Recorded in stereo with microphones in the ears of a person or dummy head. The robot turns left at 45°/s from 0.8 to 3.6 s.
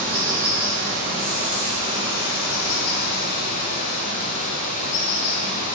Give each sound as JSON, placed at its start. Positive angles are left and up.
{"t": 0.0, "sound": "running water", "azimuth_deg": 170, "distance_m": 3.0}